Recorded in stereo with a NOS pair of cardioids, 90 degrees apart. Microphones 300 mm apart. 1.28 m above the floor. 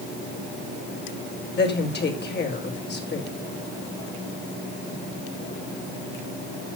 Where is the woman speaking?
35° left, 5.5 m.